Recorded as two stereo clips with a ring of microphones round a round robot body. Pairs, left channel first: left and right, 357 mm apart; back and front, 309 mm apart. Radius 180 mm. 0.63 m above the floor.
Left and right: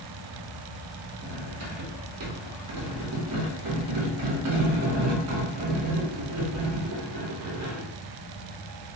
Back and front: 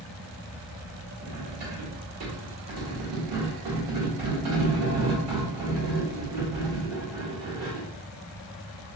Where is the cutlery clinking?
45° right, 1.0 m.